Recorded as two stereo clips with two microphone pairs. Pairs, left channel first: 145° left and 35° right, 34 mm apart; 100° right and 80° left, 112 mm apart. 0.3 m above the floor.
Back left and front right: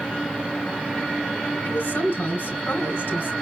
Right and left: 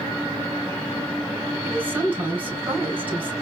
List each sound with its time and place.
1.6 s a woman speaking: 150° left, 2.5 m